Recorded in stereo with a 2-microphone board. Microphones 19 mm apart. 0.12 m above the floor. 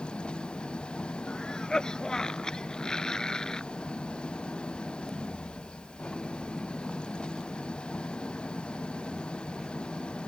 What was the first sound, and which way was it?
An engine running, 75° left (ahead or behind).